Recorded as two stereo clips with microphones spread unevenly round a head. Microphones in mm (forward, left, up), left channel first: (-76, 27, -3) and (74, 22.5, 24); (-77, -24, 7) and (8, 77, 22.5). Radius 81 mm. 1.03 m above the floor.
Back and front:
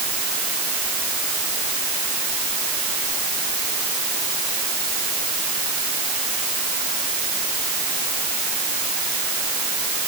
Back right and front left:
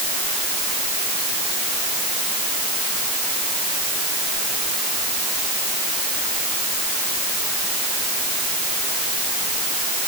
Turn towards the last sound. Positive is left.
No sound to turn to.